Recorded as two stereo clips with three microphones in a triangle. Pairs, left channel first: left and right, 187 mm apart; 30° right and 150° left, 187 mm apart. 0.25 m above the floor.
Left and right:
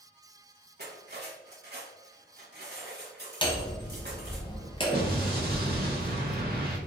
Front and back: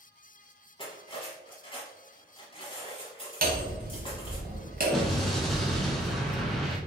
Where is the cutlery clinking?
90° right, 1.1 m.